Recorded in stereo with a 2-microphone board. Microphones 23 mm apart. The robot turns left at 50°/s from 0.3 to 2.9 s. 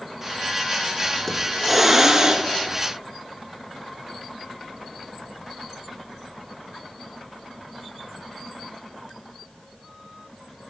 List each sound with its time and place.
1.3 s a hiss: 15° left, 0.9 m; by 2.5 s 45° right, 0.9 m